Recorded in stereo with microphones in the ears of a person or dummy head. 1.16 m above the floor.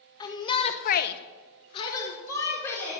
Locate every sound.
0.2 s a shout: 20° left (ahead or behind), 1.5 m; by 3.0 s 10° left (ahead or behind), 3 m